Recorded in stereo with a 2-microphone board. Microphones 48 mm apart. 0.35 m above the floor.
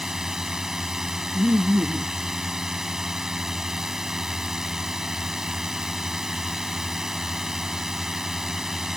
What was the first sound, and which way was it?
A drone, 10° right (ahead or behind).